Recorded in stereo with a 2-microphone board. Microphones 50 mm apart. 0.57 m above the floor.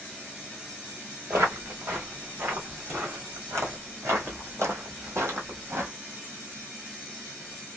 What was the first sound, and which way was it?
Footsteps, 65° right (ahead or behind).